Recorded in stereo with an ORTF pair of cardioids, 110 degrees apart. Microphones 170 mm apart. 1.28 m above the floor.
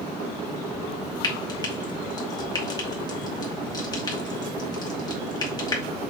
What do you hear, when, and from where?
1.2 s frying: 25° left, 2 m